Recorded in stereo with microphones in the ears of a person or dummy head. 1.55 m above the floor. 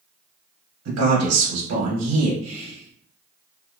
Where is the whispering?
35° right (ahead or behind), 1.1 m.